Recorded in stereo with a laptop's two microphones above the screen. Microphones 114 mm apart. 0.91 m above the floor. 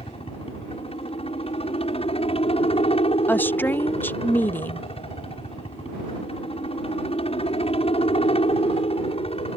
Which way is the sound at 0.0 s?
60° left (ahead or behind).